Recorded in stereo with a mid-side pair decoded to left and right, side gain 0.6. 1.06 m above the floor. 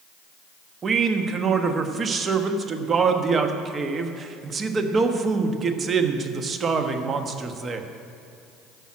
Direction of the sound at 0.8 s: 35° right.